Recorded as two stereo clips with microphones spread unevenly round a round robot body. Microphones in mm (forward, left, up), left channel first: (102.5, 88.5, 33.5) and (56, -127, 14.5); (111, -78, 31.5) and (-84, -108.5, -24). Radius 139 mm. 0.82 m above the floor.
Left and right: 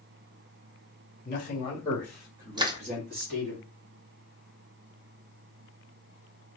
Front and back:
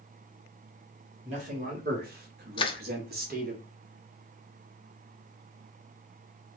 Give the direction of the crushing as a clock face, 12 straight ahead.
1 o'clock.